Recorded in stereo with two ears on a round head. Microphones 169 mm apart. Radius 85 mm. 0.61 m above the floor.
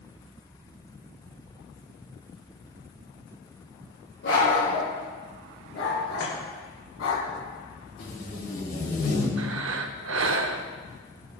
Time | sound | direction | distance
4.2 | a dog barking | 70° left (ahead or behind) | 4.5 m
6.2 | chopping | 65° left (ahead or behind) | 3 m
8.0 | tape being pulled | 60° left (ahead or behind) | 3 m
9.4 | breathing | 75° right (ahead or behind) | 0.7 m